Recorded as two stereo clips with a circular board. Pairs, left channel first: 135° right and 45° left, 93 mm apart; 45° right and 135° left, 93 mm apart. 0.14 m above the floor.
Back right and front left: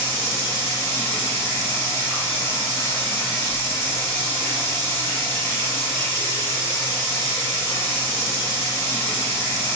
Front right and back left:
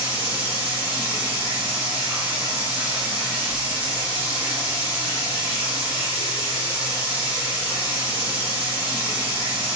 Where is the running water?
175° right, 1.5 m.